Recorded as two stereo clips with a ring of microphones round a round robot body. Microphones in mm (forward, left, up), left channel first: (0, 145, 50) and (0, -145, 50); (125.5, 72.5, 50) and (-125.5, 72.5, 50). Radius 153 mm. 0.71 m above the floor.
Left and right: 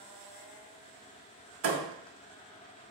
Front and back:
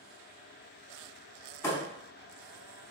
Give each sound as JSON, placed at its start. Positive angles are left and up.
{"t": 1.6, "sound": "a thud", "azimuth_deg": -75, "distance_m": 0.6}